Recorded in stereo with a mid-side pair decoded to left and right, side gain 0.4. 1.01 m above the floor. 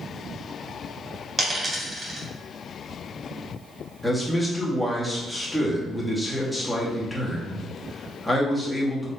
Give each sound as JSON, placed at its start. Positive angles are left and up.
{"t": 1.4, "sound": "a dropped coin", "azimuth_deg": -30, "distance_m": 2.0}
{"t": 4.0, "sound": "a man speaking", "azimuth_deg": 0, "distance_m": 1.6}